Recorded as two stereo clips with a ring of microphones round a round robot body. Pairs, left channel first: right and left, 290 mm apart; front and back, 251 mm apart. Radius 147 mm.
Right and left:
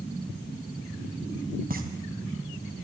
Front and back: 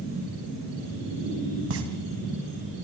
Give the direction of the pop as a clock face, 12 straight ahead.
7 o'clock.